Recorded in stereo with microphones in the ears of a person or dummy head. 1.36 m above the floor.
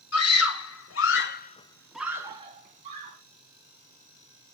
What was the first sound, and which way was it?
A scream, 80° left.